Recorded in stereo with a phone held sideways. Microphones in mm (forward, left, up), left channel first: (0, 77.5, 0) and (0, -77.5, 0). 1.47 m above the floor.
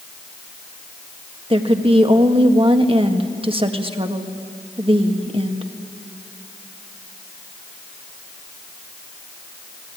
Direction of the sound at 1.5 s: 35° right (ahead or behind).